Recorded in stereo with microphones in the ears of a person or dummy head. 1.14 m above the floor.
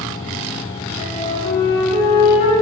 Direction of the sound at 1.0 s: 50° left (ahead or behind).